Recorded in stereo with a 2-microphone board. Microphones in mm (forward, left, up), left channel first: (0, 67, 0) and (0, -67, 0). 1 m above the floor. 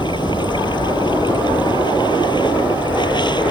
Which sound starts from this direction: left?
Running water, at 0.0 s.